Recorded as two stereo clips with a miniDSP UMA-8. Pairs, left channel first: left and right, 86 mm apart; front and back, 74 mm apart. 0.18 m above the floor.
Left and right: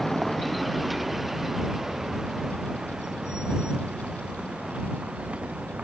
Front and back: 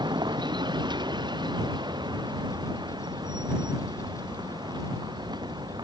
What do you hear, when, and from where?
0.0 s a vehicle: straight behind; by 5.8 s 165° right